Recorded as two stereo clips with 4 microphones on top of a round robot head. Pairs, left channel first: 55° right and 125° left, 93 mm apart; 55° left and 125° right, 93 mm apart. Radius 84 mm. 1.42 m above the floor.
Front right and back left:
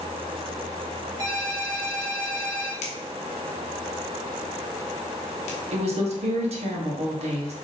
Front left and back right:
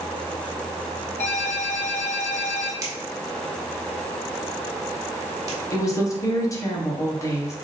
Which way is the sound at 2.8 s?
60° right.